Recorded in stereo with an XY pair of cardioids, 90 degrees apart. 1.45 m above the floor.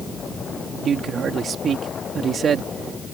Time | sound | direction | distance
0.8 | a man speaking | 60° right | ?